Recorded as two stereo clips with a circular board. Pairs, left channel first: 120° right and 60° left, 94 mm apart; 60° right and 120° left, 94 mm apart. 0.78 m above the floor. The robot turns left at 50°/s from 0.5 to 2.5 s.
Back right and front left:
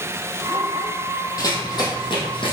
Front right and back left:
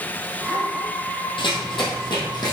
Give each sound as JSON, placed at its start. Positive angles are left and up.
{"t": 1.4, "sound": "running footsteps", "azimuth_deg": -75, "distance_m": 1.8}